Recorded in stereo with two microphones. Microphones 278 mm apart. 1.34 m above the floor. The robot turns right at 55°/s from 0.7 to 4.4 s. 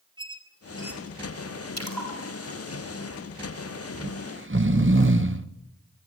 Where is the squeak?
15° right (ahead or behind), 4 m; by 1.2 s 10° left (ahead or behind), 4 m.